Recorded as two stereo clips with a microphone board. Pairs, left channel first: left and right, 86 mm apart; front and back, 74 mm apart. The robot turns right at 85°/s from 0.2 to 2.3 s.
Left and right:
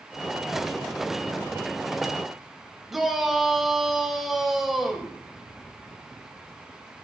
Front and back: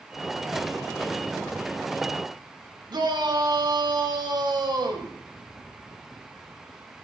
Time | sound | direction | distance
2.9 | a shout | straight behind | 3.5 m